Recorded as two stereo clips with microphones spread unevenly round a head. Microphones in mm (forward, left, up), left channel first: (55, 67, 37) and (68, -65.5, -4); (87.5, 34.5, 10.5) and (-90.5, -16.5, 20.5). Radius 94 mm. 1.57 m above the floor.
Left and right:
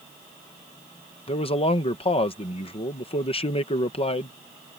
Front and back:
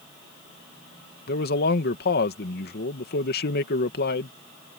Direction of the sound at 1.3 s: 50° left.